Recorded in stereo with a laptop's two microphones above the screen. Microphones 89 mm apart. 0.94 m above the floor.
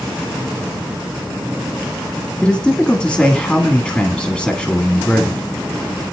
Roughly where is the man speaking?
Centre.